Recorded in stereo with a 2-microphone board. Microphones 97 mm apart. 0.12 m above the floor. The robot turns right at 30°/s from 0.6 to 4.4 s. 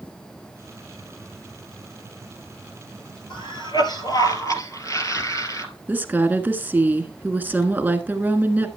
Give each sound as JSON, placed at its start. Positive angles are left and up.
{"t": 3.3, "sound": "a cough", "azimuth_deg": 105, "distance_m": 2.0}
{"t": 5.9, "sound": "a woman speaking", "side_deg": -20, "distance_m": 1.2}